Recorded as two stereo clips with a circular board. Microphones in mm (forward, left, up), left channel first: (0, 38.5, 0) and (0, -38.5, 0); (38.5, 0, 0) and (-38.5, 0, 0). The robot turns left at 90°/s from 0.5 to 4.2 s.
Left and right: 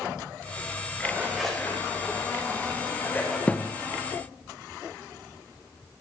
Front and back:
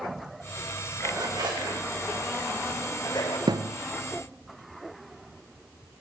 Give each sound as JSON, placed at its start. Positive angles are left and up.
{"t": 1.0, "sound": "a zipper", "azimuth_deg": -140, "distance_m": 5.5}
{"t": 3.5, "sound": "a thud", "azimuth_deg": 165, "distance_m": 1.0}